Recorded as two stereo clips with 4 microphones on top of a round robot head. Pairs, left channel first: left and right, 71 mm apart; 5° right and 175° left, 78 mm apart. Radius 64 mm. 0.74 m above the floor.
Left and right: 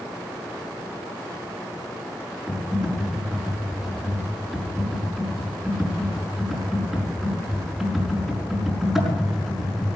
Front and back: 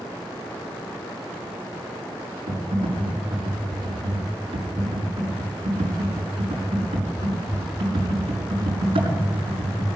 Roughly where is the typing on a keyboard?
Behind.